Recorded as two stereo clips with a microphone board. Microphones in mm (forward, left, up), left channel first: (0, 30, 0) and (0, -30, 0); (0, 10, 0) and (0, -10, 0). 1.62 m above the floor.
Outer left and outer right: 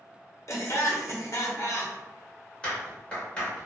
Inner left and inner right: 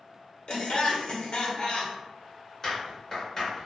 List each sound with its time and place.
0.5 s laughter: 60° left (ahead or behind), 0.9 m
2.6 s a clap: 15° left (ahead or behind), 1.4 m